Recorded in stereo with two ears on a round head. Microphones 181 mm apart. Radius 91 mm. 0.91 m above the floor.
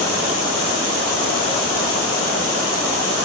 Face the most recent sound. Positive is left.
No sound to turn to.